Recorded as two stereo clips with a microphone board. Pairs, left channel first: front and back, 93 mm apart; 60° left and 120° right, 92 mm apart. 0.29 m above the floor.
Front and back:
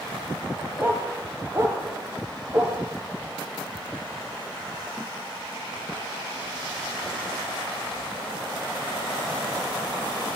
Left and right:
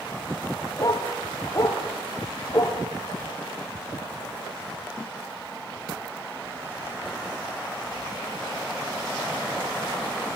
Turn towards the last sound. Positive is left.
turn(degrees=120)